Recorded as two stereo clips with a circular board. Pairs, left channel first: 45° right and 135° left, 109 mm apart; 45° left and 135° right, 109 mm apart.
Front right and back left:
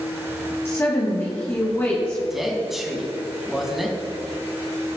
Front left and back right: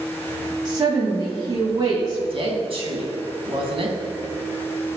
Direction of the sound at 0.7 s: 105° right.